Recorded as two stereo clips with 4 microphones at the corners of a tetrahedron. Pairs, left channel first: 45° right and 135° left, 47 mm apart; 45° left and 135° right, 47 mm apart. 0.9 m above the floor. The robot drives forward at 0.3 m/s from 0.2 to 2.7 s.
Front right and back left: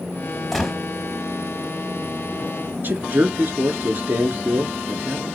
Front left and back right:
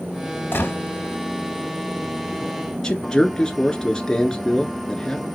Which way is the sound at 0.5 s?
35° left.